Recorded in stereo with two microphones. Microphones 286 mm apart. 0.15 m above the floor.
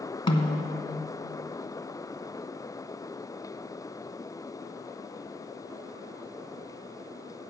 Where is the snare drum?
15° left (ahead or behind), 0.8 m.